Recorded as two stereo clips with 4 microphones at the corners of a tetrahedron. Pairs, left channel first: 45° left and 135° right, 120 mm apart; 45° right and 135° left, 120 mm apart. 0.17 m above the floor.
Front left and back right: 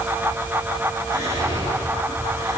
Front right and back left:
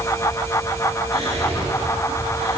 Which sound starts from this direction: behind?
Whispering, at 1.1 s.